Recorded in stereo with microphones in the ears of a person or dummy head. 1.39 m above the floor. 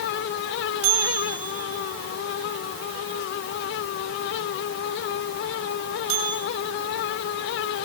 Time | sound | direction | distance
0.8 | a bell | 90° right | 8.5 m